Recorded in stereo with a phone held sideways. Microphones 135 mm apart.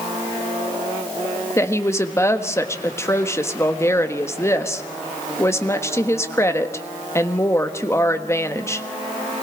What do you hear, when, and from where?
1.6 s a woman speaking: 20° left (ahead or behind), 1.4 m